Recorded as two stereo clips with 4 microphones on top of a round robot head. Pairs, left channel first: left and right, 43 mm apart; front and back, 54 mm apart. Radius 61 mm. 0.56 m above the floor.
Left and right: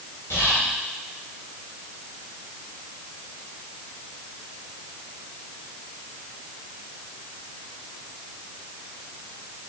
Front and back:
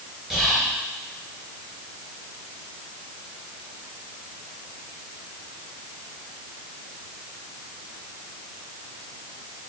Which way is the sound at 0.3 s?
95° left.